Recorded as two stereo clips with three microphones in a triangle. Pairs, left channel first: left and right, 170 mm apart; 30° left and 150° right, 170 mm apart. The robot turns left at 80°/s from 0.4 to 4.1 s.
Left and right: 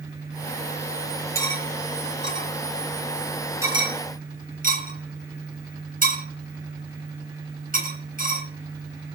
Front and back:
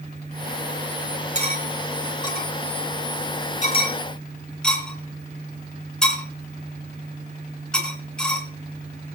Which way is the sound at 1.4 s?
165° left.